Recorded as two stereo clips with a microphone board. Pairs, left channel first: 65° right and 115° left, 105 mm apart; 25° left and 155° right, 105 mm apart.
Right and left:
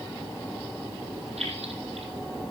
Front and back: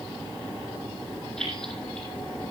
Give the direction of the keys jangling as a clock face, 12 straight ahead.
8 o'clock.